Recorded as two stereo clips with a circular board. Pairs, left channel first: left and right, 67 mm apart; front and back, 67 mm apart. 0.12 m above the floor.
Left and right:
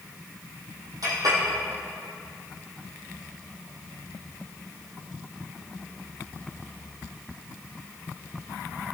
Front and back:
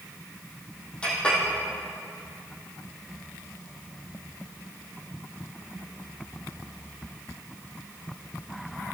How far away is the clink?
About 2.5 m.